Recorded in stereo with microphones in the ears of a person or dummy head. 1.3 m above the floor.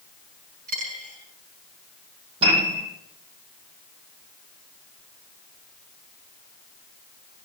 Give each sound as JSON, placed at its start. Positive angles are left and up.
{"t": 0.7, "sound": "a dropped coin", "side_deg": -35, "distance_m": 5.0}
{"t": 2.4, "sound": "a piano", "side_deg": -45, "distance_m": 9.5}